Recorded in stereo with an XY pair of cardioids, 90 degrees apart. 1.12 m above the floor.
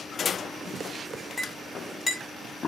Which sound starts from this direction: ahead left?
A clink, at 1.4 s.